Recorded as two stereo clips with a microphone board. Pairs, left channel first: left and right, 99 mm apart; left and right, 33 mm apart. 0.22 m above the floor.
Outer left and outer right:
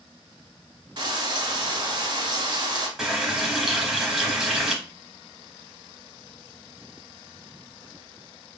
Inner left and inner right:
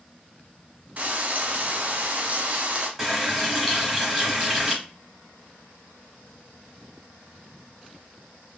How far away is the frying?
About 0.7 m.